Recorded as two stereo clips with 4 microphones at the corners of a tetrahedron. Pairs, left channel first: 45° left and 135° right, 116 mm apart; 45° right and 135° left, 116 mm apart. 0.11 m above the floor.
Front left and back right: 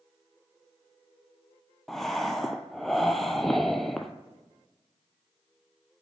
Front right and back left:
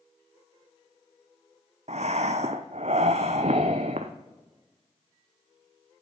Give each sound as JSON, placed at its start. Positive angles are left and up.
{"t": 1.9, "sound": "breathing", "azimuth_deg": 135, "distance_m": 0.6}